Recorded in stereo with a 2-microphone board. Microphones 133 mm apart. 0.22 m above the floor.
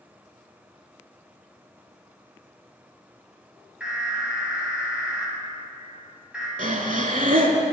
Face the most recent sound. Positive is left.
turn(degrees=-75)  # may be behind; listen again after turning